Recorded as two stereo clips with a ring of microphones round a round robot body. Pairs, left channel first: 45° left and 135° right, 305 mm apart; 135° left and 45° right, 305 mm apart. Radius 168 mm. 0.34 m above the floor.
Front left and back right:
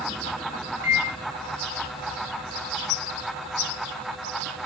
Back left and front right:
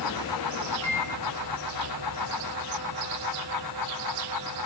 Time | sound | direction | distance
0.8 | a microwave | 150° right | 0.7 m